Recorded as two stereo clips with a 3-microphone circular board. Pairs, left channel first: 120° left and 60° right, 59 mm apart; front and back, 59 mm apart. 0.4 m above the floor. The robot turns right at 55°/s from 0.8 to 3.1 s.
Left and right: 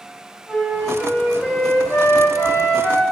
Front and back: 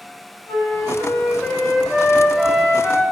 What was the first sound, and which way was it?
A flute, 10° left.